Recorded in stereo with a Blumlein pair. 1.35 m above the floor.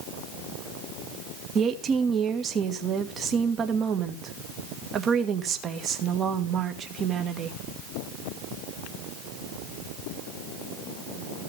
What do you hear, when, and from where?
1.6 s a woman speaking: 25° right, 1.6 m